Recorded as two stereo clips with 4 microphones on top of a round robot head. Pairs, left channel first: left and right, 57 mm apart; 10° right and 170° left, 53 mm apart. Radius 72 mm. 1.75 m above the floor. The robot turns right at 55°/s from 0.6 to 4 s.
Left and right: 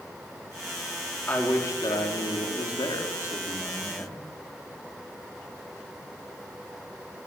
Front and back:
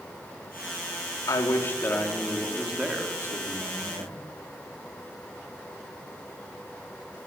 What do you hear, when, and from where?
1.3 s a man speaking: 20° left, 4.5 m; by 4.2 s 170° left, 4.5 m